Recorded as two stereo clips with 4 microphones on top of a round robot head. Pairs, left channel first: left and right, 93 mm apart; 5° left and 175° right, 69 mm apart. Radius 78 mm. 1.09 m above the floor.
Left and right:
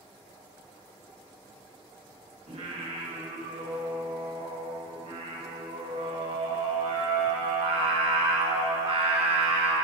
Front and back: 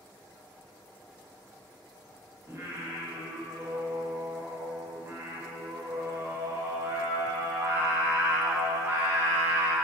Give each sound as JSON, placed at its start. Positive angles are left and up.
{"t": 2.5, "sound": "singing", "azimuth_deg": -115, "distance_m": 1.4}